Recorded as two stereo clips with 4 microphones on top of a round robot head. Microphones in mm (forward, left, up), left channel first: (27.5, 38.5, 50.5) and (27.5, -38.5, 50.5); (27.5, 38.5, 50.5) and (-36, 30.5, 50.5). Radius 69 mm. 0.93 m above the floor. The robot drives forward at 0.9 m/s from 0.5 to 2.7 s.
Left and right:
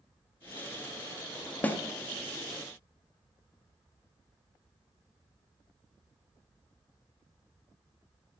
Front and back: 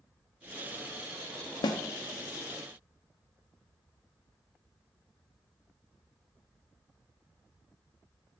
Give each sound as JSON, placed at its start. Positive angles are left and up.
{"t": 1.6, "sound": "a snare drum", "azimuth_deg": 20, "distance_m": 0.6}